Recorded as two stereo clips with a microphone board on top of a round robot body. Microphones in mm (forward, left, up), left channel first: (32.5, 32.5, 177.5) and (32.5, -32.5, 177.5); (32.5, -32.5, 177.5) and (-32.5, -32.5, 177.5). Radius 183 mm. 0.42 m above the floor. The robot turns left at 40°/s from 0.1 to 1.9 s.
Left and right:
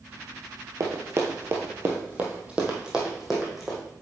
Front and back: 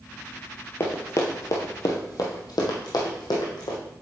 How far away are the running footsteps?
About 0.7 m.